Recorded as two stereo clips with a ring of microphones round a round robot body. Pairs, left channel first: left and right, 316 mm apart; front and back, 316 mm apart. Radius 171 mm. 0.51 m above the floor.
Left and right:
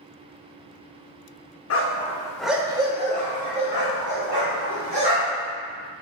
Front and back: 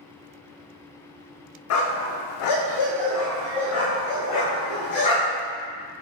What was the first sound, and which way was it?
A dog barking, 40° left.